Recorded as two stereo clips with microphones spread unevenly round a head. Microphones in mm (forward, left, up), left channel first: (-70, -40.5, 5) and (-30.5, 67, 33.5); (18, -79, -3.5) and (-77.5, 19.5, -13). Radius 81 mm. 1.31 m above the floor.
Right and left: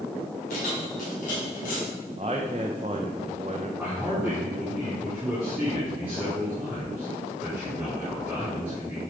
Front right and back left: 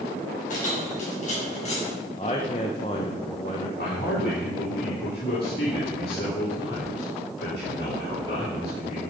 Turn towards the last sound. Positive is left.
turn(degrees=-15)